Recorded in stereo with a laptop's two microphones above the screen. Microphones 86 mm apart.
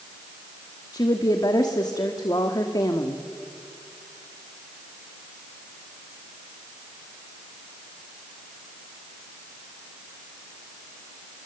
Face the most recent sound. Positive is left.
turn(degrees=50)  # may be behind; listen again after turning